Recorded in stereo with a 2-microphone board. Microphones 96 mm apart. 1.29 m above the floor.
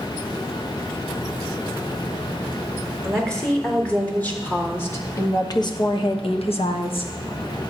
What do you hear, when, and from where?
3.0 s a woman speaking: 10° left (ahead or behind), 4 m; by 7.1 s 60° left (ahead or behind), 1.5 m